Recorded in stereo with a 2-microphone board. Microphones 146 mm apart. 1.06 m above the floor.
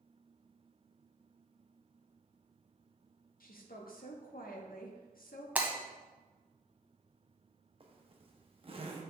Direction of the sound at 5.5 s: 10° right (ahead or behind).